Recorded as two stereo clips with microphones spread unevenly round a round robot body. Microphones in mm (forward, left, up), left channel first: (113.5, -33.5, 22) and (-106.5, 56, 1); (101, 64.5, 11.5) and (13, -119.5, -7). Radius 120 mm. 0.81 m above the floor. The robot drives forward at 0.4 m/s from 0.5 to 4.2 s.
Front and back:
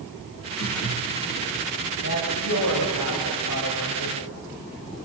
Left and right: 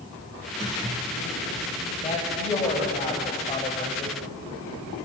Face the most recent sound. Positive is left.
turn(degrees=5)